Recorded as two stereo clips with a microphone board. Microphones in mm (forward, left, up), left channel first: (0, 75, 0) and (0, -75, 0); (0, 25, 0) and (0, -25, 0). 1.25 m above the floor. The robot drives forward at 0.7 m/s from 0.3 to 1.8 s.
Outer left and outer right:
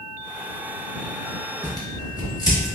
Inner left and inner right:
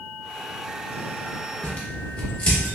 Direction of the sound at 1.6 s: 30° left (ahead or behind).